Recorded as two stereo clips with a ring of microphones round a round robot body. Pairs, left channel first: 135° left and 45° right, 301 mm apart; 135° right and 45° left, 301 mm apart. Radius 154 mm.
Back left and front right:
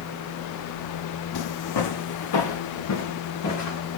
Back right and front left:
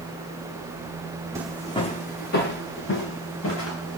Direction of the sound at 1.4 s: 125° left.